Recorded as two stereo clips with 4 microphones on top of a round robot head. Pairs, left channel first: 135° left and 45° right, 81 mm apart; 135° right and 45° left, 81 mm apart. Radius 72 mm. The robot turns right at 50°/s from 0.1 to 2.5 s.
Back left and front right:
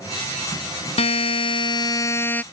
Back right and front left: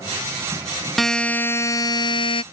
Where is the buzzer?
135° left; by 2.4 s 150° right.